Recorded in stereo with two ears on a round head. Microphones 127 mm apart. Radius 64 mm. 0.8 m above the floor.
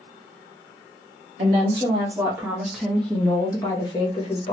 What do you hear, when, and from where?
1.4 s a woman speaking: 40° right (ahead or behind), 1.2 m; by 4.5 s 45° left (ahead or behind), 1.3 m